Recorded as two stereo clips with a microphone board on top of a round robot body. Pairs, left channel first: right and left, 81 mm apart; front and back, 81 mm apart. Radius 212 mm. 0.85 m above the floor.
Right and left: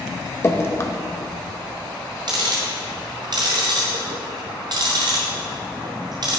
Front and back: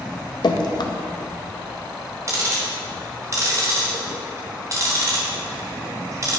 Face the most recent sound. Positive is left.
turn(degrees=130)